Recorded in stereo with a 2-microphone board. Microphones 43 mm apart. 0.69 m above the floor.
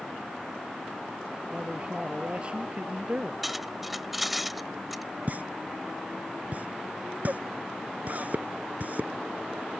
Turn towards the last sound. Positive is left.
turn(degrees=-45)  # may be behind; listen again after turning